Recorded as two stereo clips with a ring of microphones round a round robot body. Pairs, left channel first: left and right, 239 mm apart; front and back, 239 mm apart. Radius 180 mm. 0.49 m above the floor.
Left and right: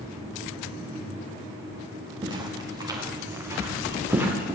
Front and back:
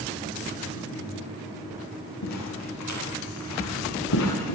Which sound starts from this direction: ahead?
Footsteps, at 2.2 s.